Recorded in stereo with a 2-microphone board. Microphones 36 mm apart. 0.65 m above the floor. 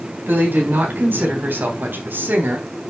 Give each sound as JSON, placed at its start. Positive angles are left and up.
{"t": 0.3, "sound": "a woman speaking", "side_deg": -75, "distance_m": 4.5}